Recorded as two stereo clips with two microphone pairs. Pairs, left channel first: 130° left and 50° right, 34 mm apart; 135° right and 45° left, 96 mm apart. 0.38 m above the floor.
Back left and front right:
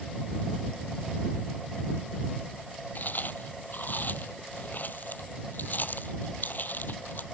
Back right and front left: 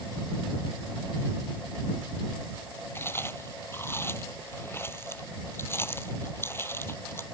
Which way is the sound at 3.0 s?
160° left.